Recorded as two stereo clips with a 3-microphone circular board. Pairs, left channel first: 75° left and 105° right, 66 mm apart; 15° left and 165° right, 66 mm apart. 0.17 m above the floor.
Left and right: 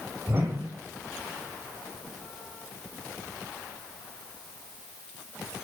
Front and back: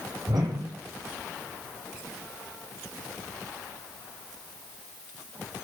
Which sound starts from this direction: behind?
A whoosh, at 0.3 s.